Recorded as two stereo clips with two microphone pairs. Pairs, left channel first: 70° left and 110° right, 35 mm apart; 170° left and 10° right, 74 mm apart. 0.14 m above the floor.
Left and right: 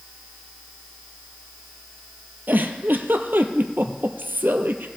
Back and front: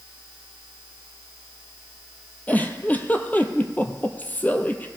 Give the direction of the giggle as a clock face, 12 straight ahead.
4 o'clock.